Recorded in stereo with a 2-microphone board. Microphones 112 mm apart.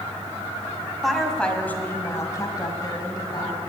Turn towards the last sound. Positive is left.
turn(degrees=40)  # may be behind; listen again after turning